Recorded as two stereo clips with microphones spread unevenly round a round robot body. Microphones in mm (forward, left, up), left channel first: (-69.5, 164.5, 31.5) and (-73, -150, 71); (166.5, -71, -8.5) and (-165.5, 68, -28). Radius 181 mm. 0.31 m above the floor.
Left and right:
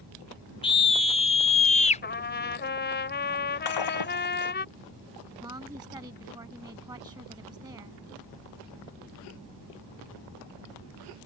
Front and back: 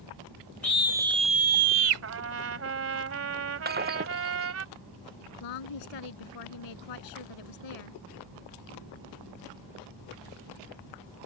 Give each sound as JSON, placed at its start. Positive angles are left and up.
{"t": 0.6, "sound": "a scream", "azimuth_deg": 60}
{"t": 2.0, "sound": "a trumpet", "azimuth_deg": 125}
{"t": 3.6, "sound": "breaking glass", "azimuth_deg": 90}
{"t": 5.4, "sound": "a woman speaking", "azimuth_deg": -10}